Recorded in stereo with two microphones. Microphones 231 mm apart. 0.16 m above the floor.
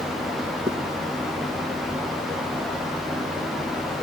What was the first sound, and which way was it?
A zipper, 20° right (ahead or behind).